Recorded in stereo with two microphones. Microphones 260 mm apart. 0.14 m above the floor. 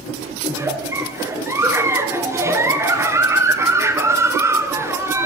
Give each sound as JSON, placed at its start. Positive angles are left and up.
{"t": 0.5, "sound": "a giggle", "side_deg": -10, "distance_m": 2.5}